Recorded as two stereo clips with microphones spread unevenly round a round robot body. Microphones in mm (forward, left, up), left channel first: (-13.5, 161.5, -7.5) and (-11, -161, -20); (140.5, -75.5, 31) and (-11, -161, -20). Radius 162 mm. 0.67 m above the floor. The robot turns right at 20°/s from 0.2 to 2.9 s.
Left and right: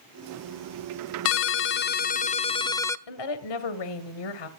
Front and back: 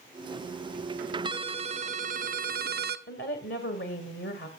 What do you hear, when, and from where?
1.2 s a ringtone: 140° left, 0.5 m; by 3.0 s 175° left, 0.5 m
3.1 s a woman speaking: 85° left, 2 m